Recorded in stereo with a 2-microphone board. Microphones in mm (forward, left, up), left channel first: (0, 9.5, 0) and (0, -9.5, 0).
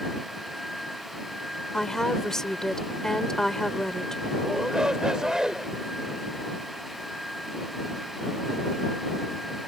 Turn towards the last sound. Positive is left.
turn(degrees=-40)  # may be behind; listen again after turning